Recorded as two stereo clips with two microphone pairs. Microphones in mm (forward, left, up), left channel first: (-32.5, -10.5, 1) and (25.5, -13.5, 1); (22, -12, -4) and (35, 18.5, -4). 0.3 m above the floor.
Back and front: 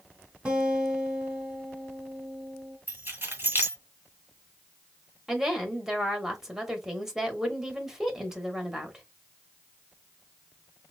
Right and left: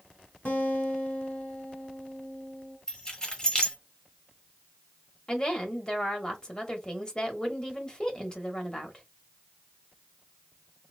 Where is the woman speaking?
80° right, 1.0 m.